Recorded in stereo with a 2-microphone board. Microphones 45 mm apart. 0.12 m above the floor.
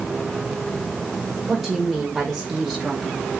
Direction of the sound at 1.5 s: 5° right (ahead or behind).